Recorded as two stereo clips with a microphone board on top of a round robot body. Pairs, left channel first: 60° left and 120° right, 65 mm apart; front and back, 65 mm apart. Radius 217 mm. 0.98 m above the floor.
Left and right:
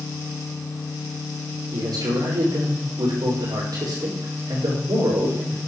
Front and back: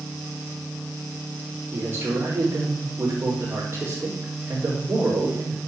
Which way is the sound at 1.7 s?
120° right.